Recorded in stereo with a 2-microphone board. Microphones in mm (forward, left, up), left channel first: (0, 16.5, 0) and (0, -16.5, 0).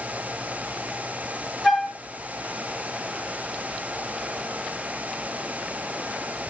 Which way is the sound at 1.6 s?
5° left (ahead or behind).